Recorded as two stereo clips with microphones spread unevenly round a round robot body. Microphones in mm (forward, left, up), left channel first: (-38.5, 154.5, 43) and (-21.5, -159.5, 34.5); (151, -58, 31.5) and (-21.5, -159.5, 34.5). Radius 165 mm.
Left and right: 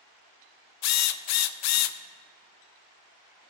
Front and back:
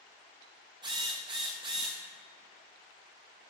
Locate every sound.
0.8 s a drill: 135° left, 0.5 m